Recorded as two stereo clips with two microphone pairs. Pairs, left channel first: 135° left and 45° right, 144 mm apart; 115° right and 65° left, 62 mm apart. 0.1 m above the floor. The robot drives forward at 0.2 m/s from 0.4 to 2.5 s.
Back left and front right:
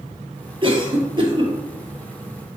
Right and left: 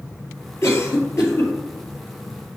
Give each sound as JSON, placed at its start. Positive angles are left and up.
{"t": 0.6, "sound": "a cough", "azimuth_deg": -90, "distance_m": 2.0}